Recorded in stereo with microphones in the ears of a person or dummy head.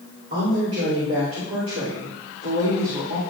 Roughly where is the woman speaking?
Right.